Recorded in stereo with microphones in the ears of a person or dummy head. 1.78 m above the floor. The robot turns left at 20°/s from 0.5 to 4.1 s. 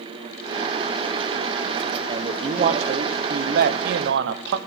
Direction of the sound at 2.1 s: 35° right.